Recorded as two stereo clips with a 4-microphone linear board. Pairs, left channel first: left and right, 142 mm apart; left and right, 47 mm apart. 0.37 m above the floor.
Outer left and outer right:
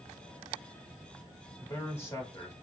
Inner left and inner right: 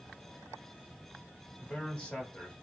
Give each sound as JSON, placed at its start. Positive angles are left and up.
{"t": 1.6, "sound": "a man speaking", "side_deg": 20, "distance_m": 1.0}